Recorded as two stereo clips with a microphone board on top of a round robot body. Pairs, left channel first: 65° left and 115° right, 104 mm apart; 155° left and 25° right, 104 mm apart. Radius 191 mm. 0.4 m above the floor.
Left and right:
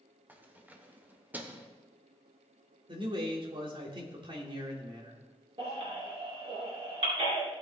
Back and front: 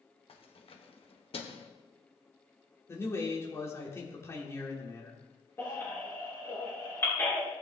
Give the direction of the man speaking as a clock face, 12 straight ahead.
5 o'clock.